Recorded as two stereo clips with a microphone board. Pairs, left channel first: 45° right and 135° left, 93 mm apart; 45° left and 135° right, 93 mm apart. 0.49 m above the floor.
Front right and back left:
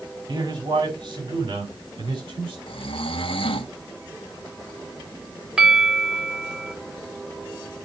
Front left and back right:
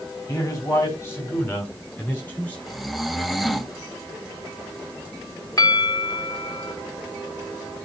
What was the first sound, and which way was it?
A man speaking, 100° left.